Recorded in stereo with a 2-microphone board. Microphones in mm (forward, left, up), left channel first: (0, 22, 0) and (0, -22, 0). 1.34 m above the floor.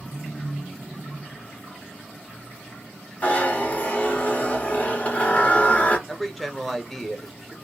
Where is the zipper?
35° left (ahead or behind), 1.3 m.